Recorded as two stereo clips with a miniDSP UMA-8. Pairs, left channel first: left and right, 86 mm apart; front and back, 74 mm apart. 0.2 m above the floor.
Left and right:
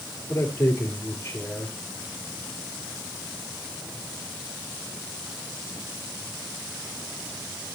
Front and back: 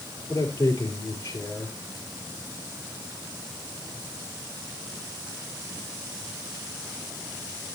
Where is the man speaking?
35° left, 4 m.